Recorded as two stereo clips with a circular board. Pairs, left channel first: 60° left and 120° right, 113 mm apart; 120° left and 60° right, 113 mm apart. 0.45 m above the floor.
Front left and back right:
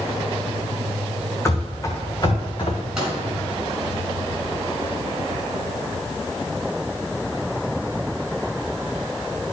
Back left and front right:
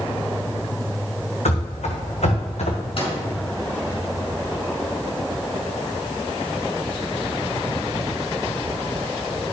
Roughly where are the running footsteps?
Behind left.